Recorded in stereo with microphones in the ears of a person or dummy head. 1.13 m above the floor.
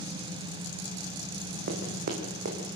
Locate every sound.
1.7 s running footsteps: 50° right (ahead or behind), 4.5 m; by 2.8 s 55° right (ahead or behind), 5 m